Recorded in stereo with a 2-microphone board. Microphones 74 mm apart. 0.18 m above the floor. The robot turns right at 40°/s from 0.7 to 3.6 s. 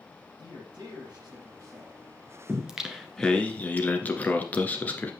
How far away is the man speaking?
About 6.5 m.